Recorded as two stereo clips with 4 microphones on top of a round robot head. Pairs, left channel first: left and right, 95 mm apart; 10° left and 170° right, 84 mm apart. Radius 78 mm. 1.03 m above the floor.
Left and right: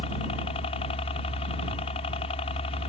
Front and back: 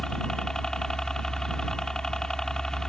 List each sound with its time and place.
0.0 s a helicopter: 90° left